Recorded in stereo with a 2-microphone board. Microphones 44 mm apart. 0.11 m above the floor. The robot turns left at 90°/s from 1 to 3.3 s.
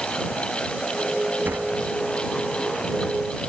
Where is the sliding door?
45° right (ahead or behind); by 3.1 s 15° left (ahead or behind).